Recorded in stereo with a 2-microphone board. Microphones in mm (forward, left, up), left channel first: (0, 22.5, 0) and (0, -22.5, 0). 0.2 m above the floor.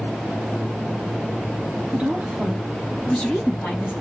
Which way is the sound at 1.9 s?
30° right (ahead or behind).